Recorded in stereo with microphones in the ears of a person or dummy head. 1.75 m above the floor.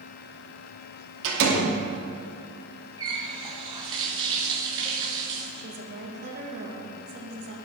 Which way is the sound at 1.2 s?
70° right (ahead or behind).